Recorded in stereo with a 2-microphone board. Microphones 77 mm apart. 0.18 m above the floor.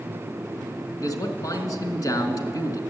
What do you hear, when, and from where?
1.0 s a man speaking: 50° left (ahead or behind), 1.6 m